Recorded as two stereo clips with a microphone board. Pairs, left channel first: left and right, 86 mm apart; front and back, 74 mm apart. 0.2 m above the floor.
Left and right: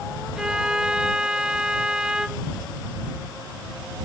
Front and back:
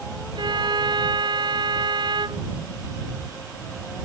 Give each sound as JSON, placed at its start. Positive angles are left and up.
{"t": 0.3, "sound": "a violin", "azimuth_deg": -170}